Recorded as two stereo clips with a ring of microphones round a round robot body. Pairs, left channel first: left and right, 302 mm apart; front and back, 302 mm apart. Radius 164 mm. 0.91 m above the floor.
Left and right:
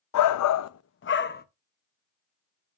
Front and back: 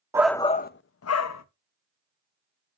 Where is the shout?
100° left, 0.6 m; by 1.4 s 30° left, 1.1 m.